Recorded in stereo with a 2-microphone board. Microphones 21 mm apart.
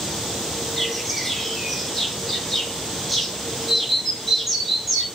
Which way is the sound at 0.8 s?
25° left (ahead or behind).